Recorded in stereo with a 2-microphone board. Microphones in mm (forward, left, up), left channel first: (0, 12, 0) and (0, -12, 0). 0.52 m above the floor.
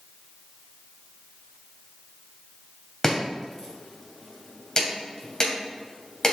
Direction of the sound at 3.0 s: 25° left (ahead or behind).